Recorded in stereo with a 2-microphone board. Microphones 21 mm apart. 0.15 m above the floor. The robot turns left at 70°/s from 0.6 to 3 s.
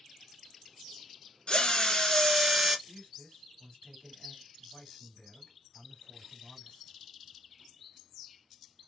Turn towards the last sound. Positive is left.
turn(degrees=45)  # may be behind; listen again after turning